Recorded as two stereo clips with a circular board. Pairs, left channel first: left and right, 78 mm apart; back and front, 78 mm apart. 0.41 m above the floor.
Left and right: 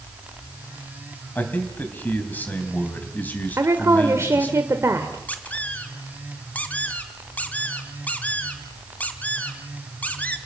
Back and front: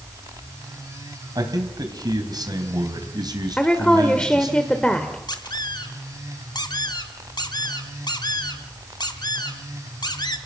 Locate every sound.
1.4 s a man speaking: 25° left, 3 m
3.6 s a woman speaking: 110° right, 1.3 m
5.3 s a squeak: 160° left, 1.6 m